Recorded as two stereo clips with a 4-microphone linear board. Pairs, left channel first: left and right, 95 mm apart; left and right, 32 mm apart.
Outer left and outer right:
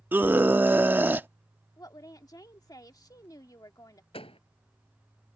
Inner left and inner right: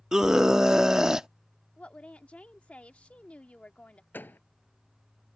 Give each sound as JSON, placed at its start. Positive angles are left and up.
{"t": 0.1, "sound": "a scream", "side_deg": -20}
{"t": 1.8, "sound": "a woman speaking", "side_deg": 45}
{"t": 4.1, "sound": "a door slam", "side_deg": 85}